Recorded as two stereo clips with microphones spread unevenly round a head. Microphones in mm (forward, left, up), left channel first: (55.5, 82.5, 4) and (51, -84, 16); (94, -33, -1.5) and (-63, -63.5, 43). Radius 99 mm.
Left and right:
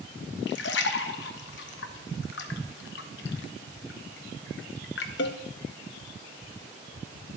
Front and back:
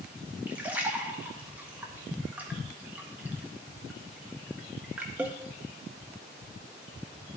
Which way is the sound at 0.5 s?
115° left.